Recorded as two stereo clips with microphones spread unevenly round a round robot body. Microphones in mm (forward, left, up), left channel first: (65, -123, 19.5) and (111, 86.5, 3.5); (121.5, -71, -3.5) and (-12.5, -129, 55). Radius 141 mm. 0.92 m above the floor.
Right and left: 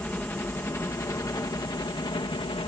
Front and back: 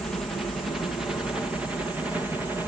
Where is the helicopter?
20° right; by 2.7 s 55° right.